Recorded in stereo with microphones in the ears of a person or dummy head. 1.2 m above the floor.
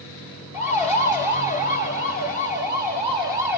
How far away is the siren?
About 3.5 m.